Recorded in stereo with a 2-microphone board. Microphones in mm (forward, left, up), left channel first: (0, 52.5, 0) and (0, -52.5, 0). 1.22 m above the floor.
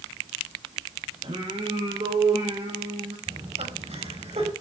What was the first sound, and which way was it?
Singing, 65° right (ahead or behind).